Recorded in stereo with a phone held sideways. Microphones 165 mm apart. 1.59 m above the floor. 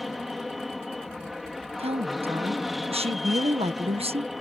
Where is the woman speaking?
35° right (ahead or behind).